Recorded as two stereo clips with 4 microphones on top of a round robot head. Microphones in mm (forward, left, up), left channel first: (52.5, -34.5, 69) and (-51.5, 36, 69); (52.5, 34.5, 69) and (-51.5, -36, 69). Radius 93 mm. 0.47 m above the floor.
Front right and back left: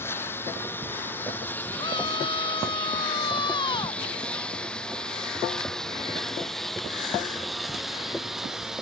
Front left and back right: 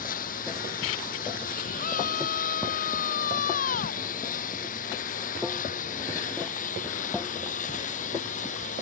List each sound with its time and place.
0.0 s a lawn mower: 40° left; by 8.8 s 60° left
1.8 s a scream: 20° left